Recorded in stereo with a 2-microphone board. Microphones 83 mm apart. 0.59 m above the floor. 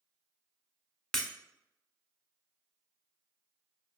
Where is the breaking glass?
5° left (ahead or behind), 0.9 m.